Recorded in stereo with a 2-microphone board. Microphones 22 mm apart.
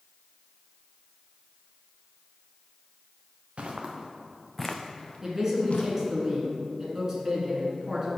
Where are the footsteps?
60° right (ahead or behind), 1.1 m; by 5.9 s 70° left (ahead or behind), 1.4 m.